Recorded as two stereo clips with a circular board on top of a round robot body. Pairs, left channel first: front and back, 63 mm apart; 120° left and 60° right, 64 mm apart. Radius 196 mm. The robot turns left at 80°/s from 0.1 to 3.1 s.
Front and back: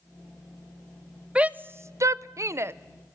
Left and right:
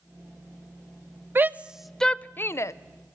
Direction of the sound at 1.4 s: 110° right.